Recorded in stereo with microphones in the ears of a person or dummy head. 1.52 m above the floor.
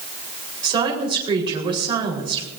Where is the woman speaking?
25° right (ahead or behind), 4 m.